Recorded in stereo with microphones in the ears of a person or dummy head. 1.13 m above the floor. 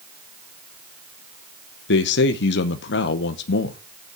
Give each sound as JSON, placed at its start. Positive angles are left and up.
{"t": 1.9, "sound": "a man speaking", "side_deg": 55, "distance_m": 0.7}